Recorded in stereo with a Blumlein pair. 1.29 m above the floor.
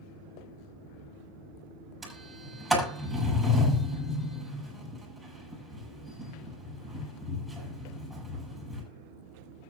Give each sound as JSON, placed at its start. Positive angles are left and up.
{"t": 2.0, "sound": "a sliding door", "azimuth_deg": 0, "distance_m": 7.5}